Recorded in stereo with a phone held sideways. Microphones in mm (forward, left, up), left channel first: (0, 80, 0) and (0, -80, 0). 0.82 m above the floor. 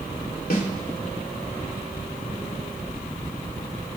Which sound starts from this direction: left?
A snare drum, at 0.5 s.